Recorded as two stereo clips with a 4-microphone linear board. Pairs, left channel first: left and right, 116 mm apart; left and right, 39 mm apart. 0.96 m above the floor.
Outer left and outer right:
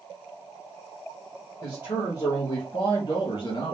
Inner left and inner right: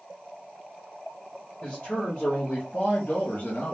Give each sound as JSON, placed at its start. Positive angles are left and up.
{"t": 1.6, "sound": "a man speaking", "side_deg": 30, "distance_m": 1.5}